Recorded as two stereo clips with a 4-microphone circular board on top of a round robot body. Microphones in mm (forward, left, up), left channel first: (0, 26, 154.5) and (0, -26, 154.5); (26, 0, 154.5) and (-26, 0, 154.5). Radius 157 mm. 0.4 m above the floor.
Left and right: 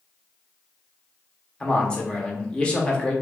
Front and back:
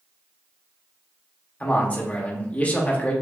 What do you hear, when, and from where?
1.6 s a man speaking: 30° left, 1.0 m